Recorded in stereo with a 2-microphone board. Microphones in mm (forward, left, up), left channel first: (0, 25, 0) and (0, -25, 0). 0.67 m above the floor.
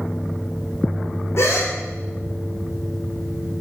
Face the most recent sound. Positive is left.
turn(degrees=60)  # may be behind; listen again after turning